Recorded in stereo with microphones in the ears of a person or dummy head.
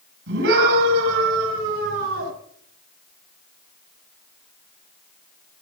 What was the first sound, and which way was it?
A scream, 70° right (ahead or behind).